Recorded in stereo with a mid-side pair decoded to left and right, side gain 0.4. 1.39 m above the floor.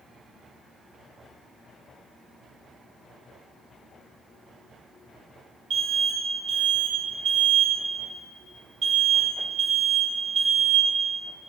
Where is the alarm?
65° right, 6 m.